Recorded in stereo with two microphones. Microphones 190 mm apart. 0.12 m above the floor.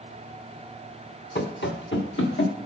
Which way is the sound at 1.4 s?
55° left (ahead or behind).